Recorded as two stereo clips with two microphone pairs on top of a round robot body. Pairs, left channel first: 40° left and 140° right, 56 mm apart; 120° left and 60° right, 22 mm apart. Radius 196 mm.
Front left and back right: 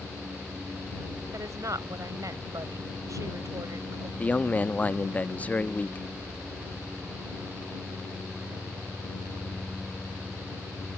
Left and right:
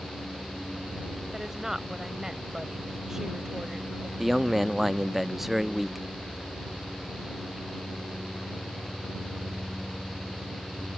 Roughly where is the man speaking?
Ahead.